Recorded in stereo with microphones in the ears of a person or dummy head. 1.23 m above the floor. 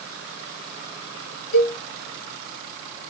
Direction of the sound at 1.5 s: 85° left.